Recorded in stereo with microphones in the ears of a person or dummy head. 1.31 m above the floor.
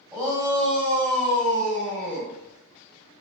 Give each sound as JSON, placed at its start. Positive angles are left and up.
{"t": 0.1, "sound": "a shout", "side_deg": -15, "distance_m": 1.9}